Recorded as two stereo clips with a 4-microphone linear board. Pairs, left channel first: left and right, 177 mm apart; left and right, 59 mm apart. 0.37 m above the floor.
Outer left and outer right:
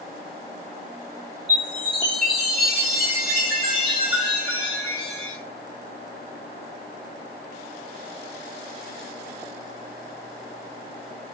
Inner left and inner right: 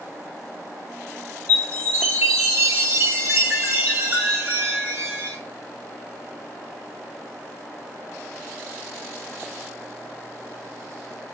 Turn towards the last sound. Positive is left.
turn(degrees=-30)  # may be behind; listen again after turning